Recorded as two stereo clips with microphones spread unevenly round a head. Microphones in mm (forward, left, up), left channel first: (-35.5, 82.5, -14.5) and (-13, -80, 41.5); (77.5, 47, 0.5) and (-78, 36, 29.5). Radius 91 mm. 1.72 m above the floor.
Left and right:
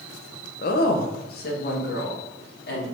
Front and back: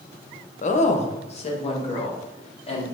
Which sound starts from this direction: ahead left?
A woman speaking, at 0.6 s.